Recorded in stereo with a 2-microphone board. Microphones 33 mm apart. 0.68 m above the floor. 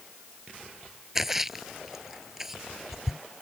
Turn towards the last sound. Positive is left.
turn(degrees=-10)  # may be behind; listen again after turning